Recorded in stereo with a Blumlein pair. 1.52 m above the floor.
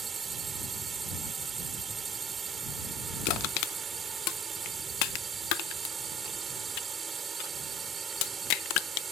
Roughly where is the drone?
Ahead.